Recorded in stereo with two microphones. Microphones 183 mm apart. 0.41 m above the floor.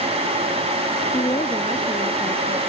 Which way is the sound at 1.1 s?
25° left (ahead or behind).